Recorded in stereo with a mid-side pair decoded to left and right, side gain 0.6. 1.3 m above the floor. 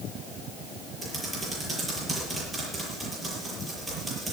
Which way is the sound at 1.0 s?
10° right.